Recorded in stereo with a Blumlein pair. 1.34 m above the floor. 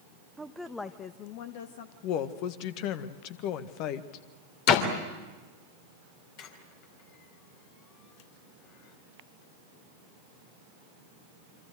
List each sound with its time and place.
0.4 s a woman speaking: 10° right, 1.0 m; by 1.9 s 65° left, 1.3 m
2.0 s a woman speaking: 40° left, 1.6 m
4.7 s a door slam: 45° left, 3 m
6.4 s a squeak: 40° left, 3 m